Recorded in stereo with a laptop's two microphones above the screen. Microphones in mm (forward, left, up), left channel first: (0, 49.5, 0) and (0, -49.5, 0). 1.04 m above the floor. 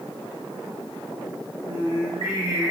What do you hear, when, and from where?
1.7 s singing: 70° right (ahead or behind), 2.0 m